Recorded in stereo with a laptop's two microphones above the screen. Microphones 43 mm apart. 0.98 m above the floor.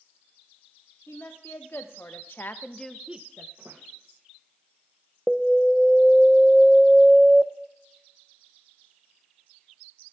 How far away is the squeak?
About 2.5 m.